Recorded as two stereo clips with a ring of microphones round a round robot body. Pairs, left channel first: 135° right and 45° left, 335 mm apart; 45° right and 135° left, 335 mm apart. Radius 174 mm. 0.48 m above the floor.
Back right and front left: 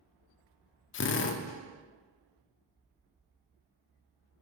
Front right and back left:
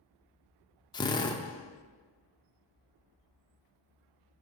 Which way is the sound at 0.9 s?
115° right.